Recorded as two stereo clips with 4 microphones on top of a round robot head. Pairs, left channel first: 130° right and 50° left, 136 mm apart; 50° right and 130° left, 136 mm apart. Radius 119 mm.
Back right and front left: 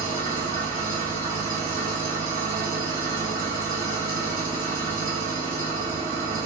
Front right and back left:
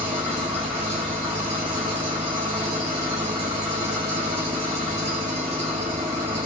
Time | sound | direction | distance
0.0 | an engine running | 70° left | 1.2 m